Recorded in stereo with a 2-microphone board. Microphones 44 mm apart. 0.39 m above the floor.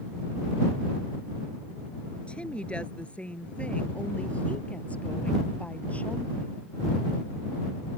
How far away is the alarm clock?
I don't hear an alarm clock.